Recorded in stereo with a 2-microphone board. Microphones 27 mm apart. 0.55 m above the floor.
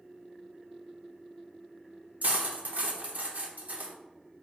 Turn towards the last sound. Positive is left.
turn(degrees=-60)  # may be behind; listen again after turning